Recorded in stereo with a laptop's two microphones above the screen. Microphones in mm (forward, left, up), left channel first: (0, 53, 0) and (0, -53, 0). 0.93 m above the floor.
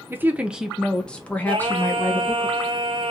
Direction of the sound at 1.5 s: 55° right (ahead or behind).